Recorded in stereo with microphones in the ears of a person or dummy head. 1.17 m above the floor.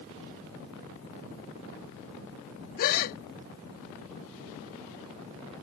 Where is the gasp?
50° left (ahead or behind).